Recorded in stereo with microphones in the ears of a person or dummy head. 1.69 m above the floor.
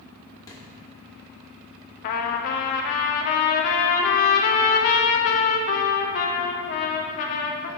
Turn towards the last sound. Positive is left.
turn(degrees=40)  # may be behind; listen again after turning